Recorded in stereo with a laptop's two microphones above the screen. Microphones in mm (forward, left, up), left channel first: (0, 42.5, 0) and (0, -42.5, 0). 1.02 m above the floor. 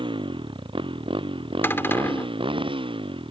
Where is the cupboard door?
25° left (ahead or behind).